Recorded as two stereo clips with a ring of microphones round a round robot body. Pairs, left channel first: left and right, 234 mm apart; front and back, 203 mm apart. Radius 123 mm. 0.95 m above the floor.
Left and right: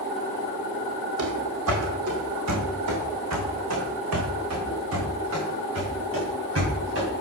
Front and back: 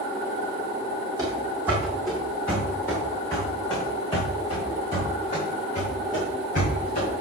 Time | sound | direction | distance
1.2 | running footsteps | 105° right | 1.9 m